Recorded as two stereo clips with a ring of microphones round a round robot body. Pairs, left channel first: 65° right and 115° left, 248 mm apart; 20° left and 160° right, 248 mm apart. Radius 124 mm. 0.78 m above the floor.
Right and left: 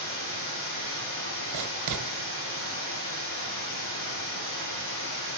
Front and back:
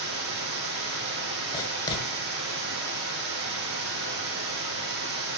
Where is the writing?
95° left, 1.5 m.